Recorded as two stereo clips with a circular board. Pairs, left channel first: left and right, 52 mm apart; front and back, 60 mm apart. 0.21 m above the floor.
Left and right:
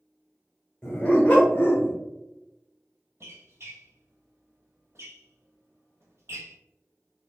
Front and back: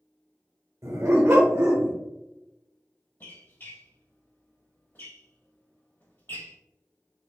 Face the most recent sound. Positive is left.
turn(degrees=-55)